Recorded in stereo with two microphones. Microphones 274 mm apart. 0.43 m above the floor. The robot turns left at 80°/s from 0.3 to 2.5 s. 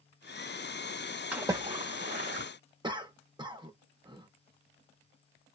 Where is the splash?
5° right (ahead or behind), 1.0 m; by 2.5 s 40° right (ahead or behind), 1.0 m.